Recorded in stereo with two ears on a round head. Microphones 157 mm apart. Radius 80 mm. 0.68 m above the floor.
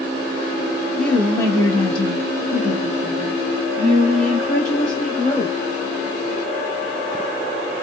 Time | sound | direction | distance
1.0 | a woman speaking | 5° left (ahead or behind) | 0.9 m